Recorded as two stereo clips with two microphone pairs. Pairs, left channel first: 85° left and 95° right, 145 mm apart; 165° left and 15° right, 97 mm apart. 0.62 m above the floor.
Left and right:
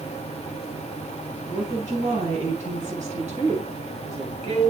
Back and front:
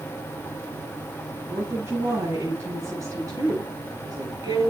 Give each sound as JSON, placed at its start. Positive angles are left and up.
{"t": 1.5, "sound": "a woman speaking", "azimuth_deg": -75, "distance_m": 7.5}